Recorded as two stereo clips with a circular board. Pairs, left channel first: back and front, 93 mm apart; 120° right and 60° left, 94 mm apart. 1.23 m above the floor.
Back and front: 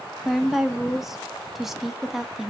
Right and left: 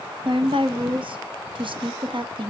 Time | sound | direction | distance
0.2 | a woman speaking | 85° left | 1.1 m